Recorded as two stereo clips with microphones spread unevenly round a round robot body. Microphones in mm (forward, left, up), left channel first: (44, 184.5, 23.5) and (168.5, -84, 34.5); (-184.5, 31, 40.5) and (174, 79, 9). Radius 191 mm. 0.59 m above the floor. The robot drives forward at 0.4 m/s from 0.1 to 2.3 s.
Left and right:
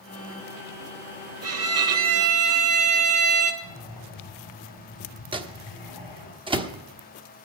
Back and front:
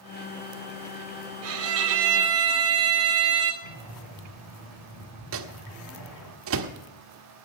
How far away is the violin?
About 1.8 m.